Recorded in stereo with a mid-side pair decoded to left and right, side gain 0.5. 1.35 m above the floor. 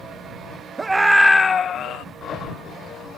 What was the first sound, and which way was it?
A scream, 25° right.